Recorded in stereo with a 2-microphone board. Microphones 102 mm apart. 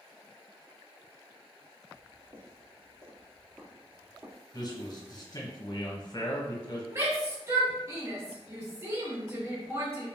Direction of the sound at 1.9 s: 30° right (ahead or behind).